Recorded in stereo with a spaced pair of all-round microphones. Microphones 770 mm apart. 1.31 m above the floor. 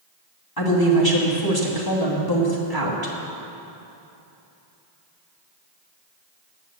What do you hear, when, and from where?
0.6 s a woman speaking: 25° left (ahead or behind), 2 m